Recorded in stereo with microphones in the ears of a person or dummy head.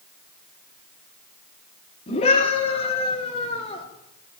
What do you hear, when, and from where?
2.1 s a scream: 40° left (ahead or behind), 4 m; by 3.9 s 35° left (ahead or behind), 5 m